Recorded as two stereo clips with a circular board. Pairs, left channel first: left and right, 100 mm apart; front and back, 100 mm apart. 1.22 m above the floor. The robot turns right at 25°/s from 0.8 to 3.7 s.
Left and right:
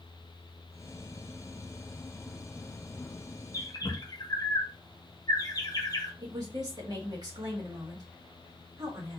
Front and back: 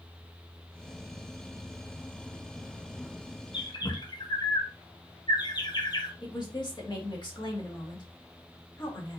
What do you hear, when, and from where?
3.5 s a bird: 35° left, 1.0 m; by 6.1 s 40° left, 1.0 m
6.2 s a woman speaking: 40° right, 1.8 m